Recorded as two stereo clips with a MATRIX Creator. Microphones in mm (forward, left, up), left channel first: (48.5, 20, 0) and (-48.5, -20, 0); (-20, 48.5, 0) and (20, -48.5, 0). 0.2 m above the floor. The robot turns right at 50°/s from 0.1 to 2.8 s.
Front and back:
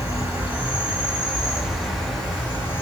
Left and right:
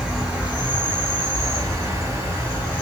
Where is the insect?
140° right, 1.9 m; by 2.8 s 5° right, 1.9 m.